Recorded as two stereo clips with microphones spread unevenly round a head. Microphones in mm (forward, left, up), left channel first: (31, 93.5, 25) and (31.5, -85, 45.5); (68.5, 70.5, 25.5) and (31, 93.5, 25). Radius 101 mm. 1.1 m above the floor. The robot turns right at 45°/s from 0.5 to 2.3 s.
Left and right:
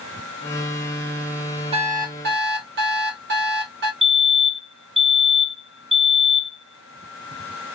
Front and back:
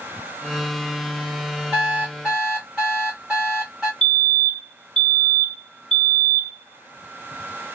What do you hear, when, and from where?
1.7 s an alarm clock: 150° right, 1.0 m; by 3.9 s 125° right, 1.0 m
4.0 s a fire alarm: 10° left, 1.5 m